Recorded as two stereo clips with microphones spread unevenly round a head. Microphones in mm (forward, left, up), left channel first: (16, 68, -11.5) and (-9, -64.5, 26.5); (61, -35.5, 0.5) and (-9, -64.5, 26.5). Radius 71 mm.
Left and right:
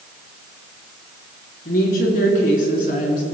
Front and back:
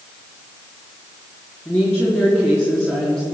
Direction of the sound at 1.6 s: 95° left.